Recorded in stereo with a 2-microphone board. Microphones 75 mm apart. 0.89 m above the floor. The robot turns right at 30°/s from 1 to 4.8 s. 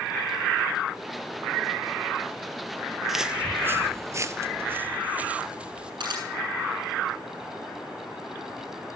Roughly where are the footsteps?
Centre.